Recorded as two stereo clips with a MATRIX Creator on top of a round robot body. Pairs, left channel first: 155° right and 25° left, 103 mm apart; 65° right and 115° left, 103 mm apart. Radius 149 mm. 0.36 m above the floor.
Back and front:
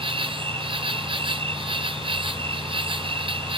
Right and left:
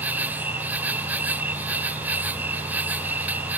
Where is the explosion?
I don't hear an explosion.